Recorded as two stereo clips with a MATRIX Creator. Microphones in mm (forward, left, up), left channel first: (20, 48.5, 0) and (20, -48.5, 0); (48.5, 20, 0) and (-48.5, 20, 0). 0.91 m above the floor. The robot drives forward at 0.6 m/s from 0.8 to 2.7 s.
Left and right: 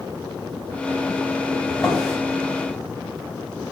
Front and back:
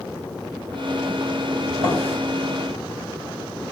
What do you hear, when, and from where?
1.7 s a drawer: straight behind, 3.5 m